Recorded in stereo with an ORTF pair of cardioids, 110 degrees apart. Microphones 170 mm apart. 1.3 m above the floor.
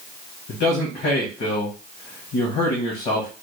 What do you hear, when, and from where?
0.5 s a man speaking: 65° left, 1.4 m